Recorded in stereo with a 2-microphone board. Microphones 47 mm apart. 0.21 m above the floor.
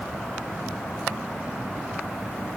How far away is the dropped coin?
I don't hear a dropped coin.